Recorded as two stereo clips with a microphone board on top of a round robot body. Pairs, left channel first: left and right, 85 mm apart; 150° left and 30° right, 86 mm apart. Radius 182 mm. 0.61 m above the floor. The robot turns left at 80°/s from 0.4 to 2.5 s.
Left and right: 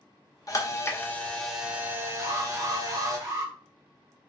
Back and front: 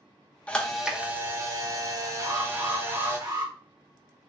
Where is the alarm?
35° right, 1.6 m; by 3.5 s 60° right, 1.6 m.